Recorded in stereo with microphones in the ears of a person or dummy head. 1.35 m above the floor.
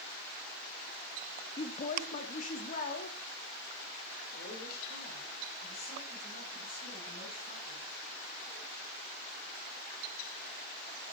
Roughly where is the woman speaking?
Left.